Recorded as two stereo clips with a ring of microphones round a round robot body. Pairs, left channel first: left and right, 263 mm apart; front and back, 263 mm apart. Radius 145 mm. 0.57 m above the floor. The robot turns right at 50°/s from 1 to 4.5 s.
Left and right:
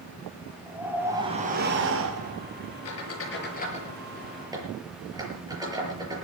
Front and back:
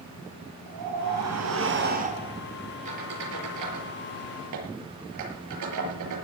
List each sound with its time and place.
0.7 s a whoosh: 175° right, 5 m; by 2.4 s 100° right, 5 m
2.9 s a squeak: 110° left, 7 m; by 6.2 s 165° right, 7 m